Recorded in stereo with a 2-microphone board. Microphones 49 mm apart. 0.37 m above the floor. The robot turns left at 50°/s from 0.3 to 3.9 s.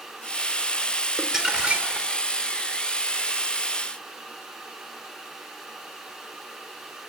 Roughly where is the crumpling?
Ahead.